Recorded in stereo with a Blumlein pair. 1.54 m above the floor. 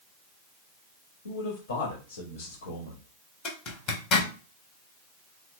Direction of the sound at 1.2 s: 65° left.